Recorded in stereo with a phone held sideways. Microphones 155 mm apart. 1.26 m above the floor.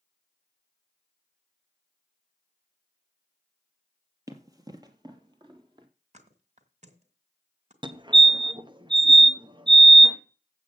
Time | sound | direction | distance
4.3 | running footsteps | 20° right (ahead or behind) | 1.3 m
6.1 | a thud | 50° right (ahead or behind) | 2.0 m
7.8 | a fire alarm | 30° right (ahead or behind) | 1.0 m